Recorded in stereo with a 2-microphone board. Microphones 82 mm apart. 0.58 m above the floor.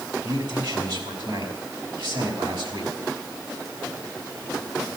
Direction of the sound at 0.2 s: 70° right (ahead or behind).